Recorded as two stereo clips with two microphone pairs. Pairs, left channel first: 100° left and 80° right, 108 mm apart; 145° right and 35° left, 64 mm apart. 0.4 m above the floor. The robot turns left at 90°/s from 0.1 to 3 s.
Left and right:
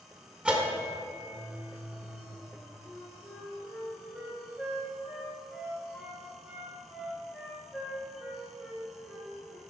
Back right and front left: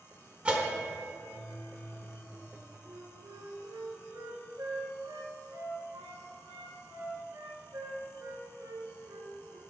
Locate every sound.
0.5 s a bell: 10° right, 0.7 m; by 2.8 s 145° left, 0.7 m
2.9 s a flute: 20° left, 1.5 m; by 9.6 s 10° left, 1.5 m